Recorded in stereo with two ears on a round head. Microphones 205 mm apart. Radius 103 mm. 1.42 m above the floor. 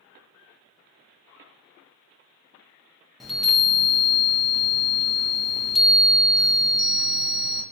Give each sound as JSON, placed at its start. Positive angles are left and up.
{"t": 3.2, "sound": "a chime", "side_deg": 0, "distance_m": 0.6}